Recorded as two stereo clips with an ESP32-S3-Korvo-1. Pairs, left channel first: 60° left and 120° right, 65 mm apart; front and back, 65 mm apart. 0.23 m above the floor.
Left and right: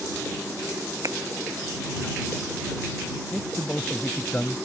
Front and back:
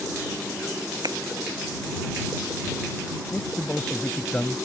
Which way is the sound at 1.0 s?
155° right.